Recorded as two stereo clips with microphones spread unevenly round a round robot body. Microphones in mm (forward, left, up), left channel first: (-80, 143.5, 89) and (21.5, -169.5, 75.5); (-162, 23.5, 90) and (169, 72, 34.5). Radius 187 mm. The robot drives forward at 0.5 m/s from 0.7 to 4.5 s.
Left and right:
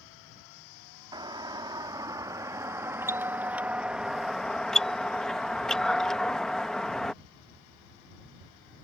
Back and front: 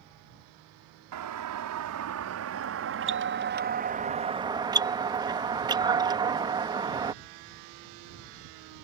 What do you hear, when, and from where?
1.1 s a doorbell: 5° left; by 7.1 s 15° left